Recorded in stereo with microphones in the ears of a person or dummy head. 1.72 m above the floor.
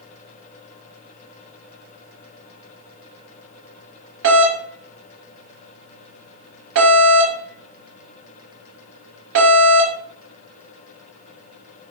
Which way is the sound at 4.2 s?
70° right (ahead or behind).